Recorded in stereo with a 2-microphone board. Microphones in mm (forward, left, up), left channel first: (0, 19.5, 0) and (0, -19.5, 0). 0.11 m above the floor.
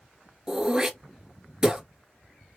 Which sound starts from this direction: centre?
Throat clearing, at 0.5 s.